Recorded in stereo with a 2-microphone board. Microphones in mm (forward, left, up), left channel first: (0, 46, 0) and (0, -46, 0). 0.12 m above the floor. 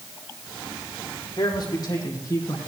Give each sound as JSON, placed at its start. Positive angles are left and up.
{"t": 1.4, "sound": "a man speaking", "side_deg": 45, "distance_m": 5.0}